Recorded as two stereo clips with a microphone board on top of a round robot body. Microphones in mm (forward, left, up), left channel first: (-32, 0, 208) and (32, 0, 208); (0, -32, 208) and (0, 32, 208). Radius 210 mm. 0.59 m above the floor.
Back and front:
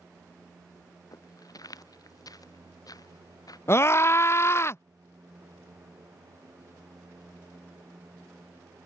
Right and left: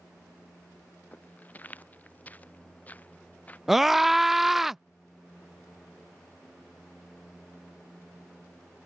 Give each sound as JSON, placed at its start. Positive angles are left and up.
{"t": 1.1, "sound": "footsteps", "azimuth_deg": -155}
{"t": 3.7, "sound": "a scream", "azimuth_deg": 170}